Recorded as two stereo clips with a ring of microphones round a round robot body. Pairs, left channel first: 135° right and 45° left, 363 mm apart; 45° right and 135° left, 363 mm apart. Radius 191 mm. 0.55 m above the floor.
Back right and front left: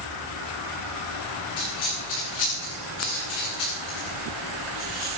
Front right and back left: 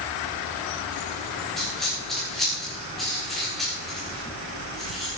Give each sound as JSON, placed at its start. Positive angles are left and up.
{"t": 1.6, "sound": "a dropped coin", "azimuth_deg": -135, "distance_m": 7.5}